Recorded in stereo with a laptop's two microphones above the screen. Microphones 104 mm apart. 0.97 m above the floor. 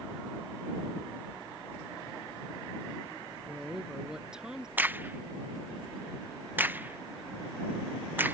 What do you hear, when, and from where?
3.5 s a woman speaking: 5° right (ahead or behind)
4.8 s a crack: 20° right (ahead or behind)